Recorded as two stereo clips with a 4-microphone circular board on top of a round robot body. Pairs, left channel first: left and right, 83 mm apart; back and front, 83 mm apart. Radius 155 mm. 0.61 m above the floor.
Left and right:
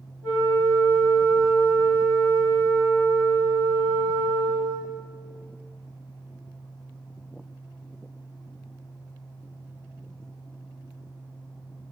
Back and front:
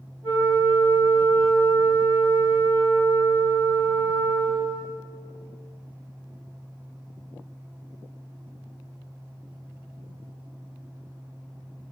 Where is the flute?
Straight ahead, 1.9 m.